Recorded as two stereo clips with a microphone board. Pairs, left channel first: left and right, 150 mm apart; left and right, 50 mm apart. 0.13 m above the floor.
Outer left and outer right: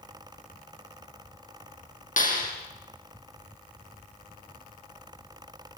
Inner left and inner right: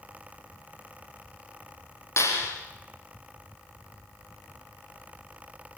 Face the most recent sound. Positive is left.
turn(degrees=60)  # may be behind; listen again after turning